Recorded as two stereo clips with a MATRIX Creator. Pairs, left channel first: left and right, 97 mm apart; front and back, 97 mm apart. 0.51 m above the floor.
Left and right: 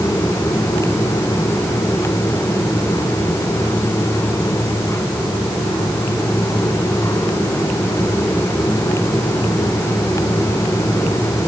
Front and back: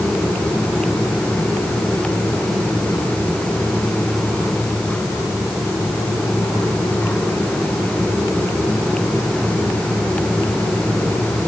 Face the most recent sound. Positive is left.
No sound to turn to.